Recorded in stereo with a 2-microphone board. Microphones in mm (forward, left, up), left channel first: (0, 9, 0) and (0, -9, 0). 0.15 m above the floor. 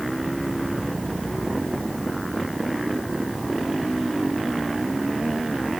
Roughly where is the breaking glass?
I don't hear breaking glass.